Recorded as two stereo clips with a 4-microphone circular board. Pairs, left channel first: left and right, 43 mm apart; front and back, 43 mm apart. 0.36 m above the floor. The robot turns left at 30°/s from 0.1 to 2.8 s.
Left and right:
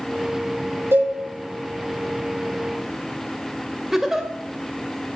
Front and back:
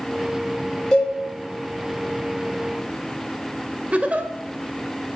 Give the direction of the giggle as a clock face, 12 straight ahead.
5 o'clock.